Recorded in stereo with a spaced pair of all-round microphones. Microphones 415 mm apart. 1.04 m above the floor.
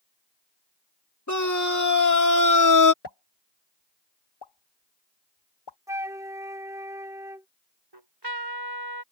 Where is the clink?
No clink in this recording.